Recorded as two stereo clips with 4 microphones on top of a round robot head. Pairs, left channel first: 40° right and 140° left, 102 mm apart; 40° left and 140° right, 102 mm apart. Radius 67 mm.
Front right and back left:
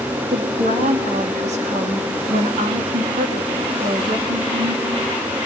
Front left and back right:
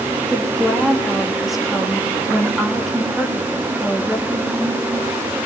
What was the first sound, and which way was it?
A woman speaking, 135° left.